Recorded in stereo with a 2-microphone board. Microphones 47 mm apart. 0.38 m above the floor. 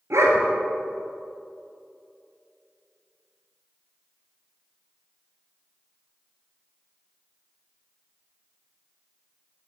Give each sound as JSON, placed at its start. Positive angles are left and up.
{"t": 0.1, "sound": "a dog barking", "side_deg": -80, "distance_m": 1.5}